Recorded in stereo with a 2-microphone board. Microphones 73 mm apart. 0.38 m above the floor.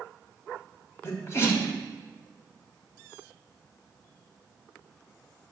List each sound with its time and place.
1.0 s a sneeze: 35° left (ahead or behind), 2.5 m